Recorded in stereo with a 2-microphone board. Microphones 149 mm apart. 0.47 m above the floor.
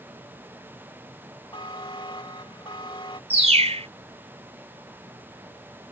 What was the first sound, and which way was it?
A buzzer, 35° left (ahead or behind).